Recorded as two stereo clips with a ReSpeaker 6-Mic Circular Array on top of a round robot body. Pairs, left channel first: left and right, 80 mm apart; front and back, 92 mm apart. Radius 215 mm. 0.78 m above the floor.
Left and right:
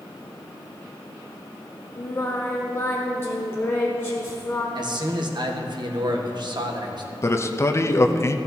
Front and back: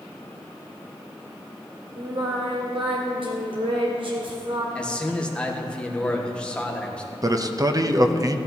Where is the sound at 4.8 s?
75° right, 1.7 m.